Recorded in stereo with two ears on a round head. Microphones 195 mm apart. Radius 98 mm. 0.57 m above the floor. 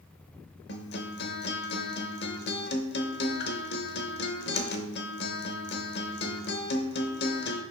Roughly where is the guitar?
Left.